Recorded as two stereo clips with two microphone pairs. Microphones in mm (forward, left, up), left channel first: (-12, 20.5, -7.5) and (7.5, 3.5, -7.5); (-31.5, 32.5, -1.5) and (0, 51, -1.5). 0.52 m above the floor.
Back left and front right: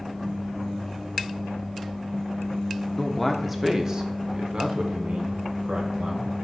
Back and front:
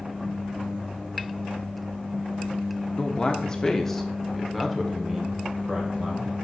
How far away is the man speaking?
About 0.8 m.